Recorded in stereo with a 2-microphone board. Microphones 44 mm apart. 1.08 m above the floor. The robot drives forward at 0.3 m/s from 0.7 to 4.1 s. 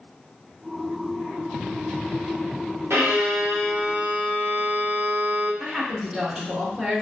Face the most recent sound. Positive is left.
turn(degrees=-15)  # may be behind; listen again after turning